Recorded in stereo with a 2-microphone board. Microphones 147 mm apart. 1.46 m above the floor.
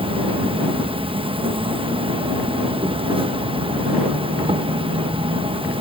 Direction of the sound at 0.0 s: 35° right (ahead or behind).